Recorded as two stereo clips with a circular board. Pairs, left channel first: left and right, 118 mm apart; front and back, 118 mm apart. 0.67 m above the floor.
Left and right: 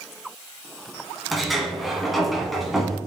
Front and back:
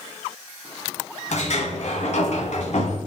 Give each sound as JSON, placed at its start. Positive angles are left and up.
{"t": 1.3, "sound": "a sliding door", "azimuth_deg": 0, "distance_m": 1.2}